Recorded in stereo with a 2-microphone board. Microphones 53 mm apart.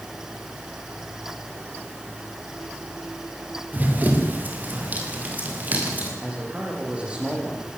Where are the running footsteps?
30° right (ahead or behind), 5 m.